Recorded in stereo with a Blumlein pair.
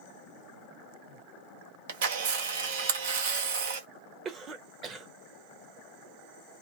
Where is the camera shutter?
55° right, 0.9 m.